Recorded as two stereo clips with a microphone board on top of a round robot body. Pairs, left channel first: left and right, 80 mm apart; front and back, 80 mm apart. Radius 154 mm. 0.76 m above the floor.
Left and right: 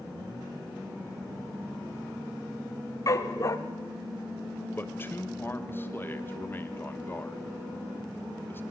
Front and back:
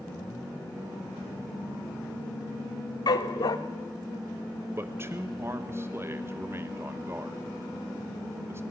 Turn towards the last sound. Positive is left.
turn(degrees=140)